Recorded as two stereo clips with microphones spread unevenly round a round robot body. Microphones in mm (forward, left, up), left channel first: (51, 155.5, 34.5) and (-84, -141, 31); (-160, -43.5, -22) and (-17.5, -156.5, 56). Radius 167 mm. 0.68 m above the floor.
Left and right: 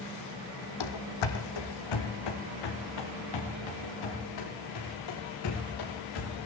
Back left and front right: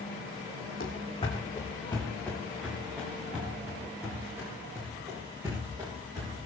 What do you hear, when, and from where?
0.8 s running footsteps: 70° left, 1.5 m; by 6.5 s 40° left, 7.5 m